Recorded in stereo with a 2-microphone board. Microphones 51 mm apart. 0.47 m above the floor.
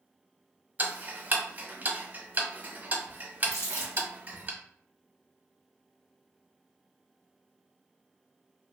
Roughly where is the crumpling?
Left.